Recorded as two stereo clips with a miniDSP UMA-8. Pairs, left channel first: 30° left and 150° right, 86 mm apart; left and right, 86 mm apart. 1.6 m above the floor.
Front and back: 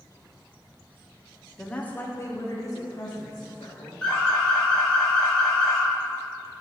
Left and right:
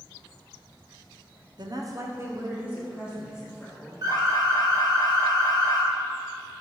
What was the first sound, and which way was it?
A woman speaking, 55° right.